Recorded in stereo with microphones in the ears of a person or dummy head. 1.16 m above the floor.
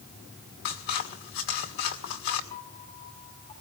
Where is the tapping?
I don't hear tapping.